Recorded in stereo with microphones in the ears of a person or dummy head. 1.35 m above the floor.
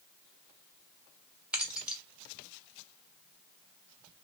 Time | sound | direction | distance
1.5 | keys jangling | 5° right (ahead or behind) | 1.0 m